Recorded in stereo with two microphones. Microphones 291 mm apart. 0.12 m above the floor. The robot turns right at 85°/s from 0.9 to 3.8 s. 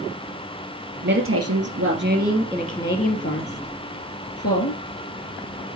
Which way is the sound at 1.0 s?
135° right.